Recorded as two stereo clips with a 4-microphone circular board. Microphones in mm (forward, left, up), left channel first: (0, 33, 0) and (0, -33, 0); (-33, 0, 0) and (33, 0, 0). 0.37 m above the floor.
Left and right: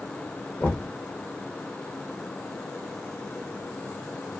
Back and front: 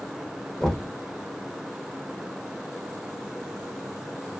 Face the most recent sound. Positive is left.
turn(degrees=110)